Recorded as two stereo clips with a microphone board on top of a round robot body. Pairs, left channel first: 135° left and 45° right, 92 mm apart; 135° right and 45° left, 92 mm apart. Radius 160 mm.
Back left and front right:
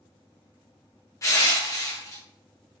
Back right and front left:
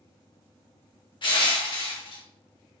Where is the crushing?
170° right, 0.9 m.